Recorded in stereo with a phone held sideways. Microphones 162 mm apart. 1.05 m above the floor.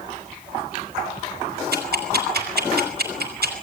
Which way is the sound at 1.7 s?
80° right.